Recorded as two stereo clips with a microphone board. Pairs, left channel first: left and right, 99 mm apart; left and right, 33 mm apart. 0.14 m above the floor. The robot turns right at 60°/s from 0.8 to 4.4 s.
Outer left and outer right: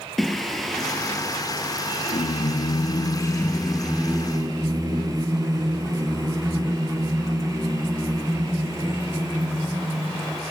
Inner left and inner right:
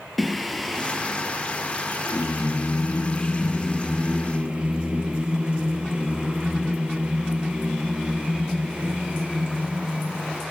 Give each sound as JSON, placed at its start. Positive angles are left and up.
{"t": 0.2, "sound": "singing", "azimuth_deg": 0, "distance_m": 1.0}